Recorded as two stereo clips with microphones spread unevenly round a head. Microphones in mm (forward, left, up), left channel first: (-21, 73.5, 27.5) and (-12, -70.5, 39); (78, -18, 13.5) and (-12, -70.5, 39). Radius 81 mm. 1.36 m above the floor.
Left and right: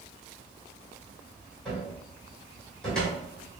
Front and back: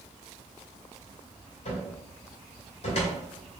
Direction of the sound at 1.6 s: 5° left.